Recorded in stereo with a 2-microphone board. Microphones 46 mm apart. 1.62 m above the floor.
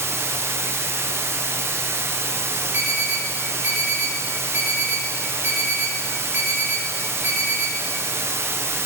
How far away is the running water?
About 0.9 m.